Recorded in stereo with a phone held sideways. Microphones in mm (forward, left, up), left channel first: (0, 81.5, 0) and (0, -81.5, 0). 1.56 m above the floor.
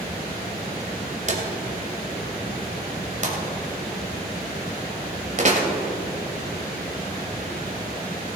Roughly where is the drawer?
Right.